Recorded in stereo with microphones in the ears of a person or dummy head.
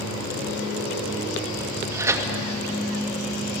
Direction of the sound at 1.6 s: 15° right (ahead or behind).